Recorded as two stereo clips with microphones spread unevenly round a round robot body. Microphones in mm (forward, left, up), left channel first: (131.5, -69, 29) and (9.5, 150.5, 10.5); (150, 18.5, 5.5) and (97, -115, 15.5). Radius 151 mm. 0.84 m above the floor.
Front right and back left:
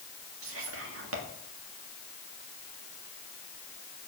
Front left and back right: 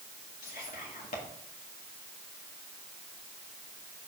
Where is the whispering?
100° left, 1.9 m.